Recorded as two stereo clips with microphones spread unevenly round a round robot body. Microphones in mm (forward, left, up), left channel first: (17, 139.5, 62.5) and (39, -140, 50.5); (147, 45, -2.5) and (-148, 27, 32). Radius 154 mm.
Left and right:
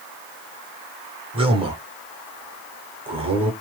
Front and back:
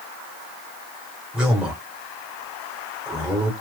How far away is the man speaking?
About 0.8 m.